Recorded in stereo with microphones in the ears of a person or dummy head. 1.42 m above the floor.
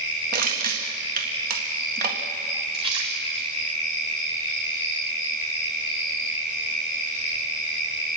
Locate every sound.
0.3 s crushing: 50° right (ahead or behind), 1.8 m
2.7 s a splash: 35° right (ahead or behind), 4 m